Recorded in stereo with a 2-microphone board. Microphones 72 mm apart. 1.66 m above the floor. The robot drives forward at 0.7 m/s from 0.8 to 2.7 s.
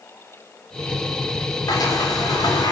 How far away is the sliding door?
About 6 m.